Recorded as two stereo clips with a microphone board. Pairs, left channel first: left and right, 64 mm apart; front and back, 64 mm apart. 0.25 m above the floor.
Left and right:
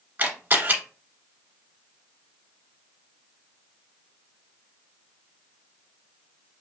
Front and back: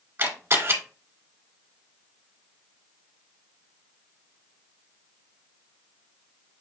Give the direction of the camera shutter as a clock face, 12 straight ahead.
5 o'clock.